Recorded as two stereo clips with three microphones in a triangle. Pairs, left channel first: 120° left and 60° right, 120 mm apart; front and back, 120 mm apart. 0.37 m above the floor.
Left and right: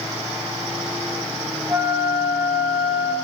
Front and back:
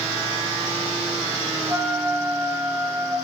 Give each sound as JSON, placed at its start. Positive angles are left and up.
{"t": 1.7, "sound": "a flute", "azimuth_deg": -115, "distance_m": 0.7}